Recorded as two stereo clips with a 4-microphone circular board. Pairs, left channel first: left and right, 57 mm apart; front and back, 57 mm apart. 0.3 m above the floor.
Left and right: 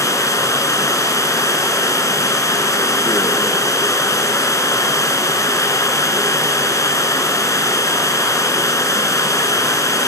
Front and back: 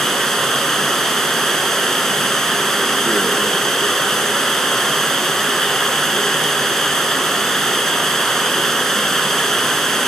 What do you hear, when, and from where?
0.0 s running water: 85° left, 2.5 m